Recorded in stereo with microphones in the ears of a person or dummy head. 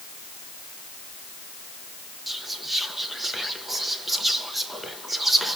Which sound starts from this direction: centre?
Whispering, at 2.3 s.